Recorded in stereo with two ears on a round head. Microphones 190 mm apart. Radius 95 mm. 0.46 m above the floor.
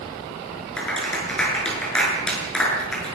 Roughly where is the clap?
Centre.